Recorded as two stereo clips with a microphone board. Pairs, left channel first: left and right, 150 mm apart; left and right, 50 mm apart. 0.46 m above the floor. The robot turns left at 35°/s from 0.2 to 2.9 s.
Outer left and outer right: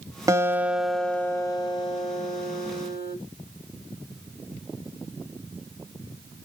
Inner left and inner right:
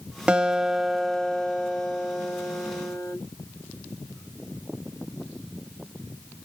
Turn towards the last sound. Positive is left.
turn(degrees=110)